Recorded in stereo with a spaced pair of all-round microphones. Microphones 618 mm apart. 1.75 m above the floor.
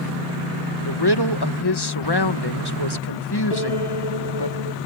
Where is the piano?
70° left (ahead or behind).